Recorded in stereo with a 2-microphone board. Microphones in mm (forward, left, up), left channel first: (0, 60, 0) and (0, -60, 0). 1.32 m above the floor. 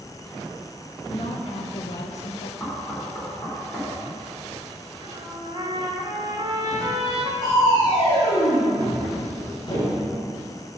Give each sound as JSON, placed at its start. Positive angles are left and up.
{"t": 1.1, "sound": "a woman speaking", "side_deg": 45, "distance_m": 1.0}
{"t": 2.6, "sound": "knocking", "side_deg": 15, "distance_m": 3.5}
{"t": 5.0, "sound": "a trumpet", "side_deg": -40, "distance_m": 1.5}
{"t": 7.4, "sound": "crushing", "side_deg": 40, "distance_m": 3.0}